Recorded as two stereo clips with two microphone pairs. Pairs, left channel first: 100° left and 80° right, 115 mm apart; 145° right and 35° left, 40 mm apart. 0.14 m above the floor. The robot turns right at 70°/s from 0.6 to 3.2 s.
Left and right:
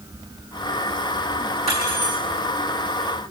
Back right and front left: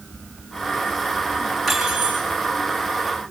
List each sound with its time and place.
1.7 s cutlery clinking: 55° right, 5 m; by 2.2 s 15° right, 5 m